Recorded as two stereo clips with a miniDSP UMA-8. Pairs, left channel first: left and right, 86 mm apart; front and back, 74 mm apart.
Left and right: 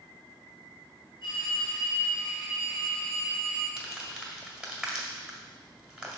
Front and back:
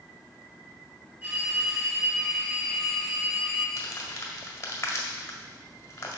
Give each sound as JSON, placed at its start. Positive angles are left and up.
{"t": 1.2, "sound": "a phone ringing", "azimuth_deg": 110, "distance_m": 3.5}
{"t": 3.8, "sound": "crumpling", "azimuth_deg": -15, "distance_m": 1.7}